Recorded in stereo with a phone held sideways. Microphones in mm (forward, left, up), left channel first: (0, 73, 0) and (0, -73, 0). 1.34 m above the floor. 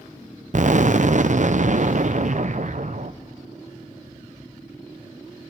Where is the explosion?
55° right (ahead or behind), 0.6 m.